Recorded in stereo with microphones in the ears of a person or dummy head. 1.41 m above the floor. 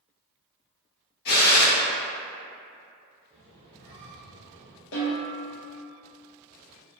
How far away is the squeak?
About 0.7 m.